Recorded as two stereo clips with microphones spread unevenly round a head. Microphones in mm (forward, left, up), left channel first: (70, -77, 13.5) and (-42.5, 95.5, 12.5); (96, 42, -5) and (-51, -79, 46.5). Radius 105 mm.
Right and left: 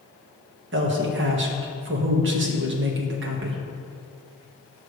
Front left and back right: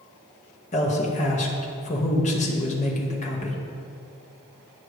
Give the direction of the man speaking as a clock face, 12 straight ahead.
9 o'clock.